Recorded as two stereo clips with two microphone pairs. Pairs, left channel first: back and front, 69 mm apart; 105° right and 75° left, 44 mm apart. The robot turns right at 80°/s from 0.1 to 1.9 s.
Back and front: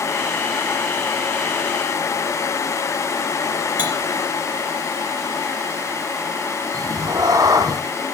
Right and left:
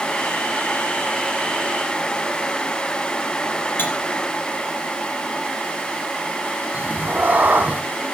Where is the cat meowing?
25° left, 1.3 m.